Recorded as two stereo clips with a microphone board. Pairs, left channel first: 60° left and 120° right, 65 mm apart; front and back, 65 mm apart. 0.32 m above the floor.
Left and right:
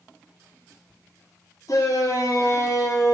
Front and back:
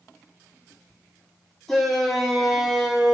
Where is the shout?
85° left, 6.5 m; by 3.1 s 95° left, 6 m.